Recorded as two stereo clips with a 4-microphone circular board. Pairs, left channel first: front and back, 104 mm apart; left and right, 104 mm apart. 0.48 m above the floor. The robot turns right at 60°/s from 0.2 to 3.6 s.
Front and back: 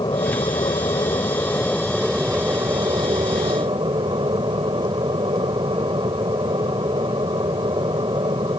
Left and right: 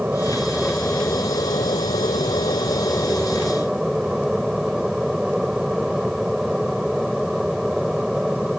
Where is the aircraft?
20° right; by 8.6 s 175° right.